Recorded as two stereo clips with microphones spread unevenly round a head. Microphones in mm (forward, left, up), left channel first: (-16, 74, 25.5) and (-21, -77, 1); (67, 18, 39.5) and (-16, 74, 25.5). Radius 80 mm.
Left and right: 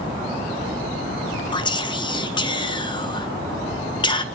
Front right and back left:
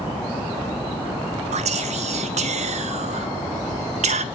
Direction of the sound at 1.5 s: 150° left.